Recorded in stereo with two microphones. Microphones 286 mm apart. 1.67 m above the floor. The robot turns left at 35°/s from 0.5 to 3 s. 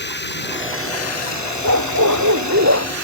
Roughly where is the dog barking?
Right.